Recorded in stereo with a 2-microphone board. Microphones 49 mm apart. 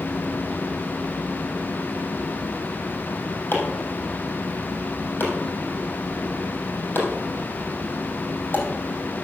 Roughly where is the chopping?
Left.